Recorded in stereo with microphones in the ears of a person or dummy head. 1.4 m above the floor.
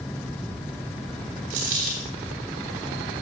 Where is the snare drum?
No snare drum in this recording.